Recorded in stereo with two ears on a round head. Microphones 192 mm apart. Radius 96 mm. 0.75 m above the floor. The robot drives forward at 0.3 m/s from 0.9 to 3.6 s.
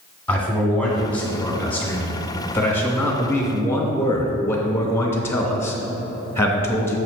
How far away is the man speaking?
About 1.4 m.